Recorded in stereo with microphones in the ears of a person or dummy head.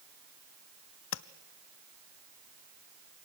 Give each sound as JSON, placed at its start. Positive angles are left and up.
{"t": 1.1, "sound": "tapping", "side_deg": 75, "distance_m": 0.7}